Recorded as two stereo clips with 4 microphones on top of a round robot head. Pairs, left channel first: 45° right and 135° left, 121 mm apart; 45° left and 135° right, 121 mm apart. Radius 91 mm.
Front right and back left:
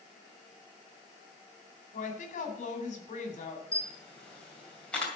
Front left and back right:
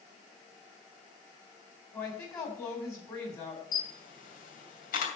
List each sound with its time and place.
1.9 s a woman speaking: 20° right, 3.5 m
3.7 s a camera shutter: 40° left, 2.5 m